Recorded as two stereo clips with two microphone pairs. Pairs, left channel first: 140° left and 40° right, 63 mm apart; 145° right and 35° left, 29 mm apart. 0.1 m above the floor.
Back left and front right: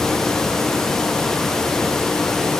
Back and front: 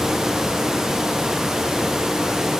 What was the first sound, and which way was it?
Only background noise.